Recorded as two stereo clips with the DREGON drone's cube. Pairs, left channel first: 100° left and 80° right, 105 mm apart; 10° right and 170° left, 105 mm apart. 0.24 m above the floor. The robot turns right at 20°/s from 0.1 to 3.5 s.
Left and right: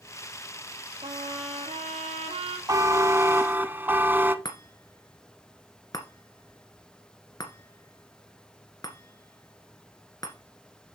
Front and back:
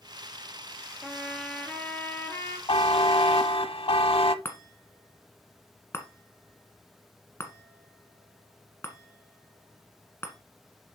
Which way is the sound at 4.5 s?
50° left.